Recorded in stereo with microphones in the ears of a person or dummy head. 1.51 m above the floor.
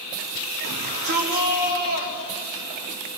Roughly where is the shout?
Right.